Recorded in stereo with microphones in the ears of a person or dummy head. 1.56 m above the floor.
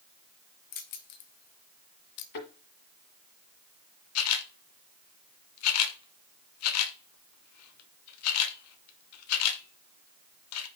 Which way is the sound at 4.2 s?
80° left.